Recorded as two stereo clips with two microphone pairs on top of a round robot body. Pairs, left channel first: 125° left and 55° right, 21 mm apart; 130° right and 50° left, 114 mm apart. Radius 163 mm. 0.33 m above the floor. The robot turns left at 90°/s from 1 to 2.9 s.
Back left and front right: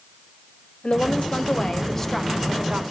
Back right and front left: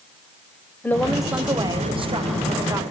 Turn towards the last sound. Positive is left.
turn(degrees=-20)